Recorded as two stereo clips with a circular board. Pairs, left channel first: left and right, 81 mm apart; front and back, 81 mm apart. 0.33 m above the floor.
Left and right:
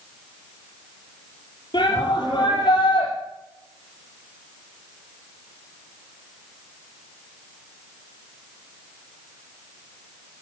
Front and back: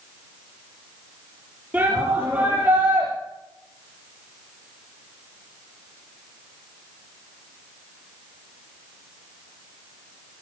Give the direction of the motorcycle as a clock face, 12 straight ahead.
I don't hear a motorcycle.